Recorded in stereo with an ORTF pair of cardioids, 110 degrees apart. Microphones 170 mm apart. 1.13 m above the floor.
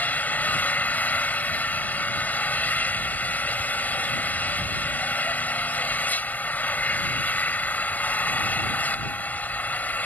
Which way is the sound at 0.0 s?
10° left.